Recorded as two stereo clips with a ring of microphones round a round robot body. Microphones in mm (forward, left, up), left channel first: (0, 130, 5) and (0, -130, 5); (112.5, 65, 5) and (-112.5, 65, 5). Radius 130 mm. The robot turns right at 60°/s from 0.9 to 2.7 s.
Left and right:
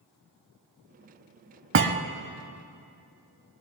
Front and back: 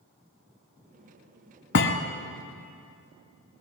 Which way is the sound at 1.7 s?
50° right.